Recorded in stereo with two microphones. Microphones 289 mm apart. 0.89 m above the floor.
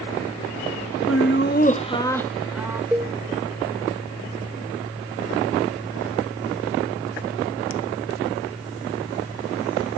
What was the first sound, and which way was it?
Laughter, 55° left (ahead or behind).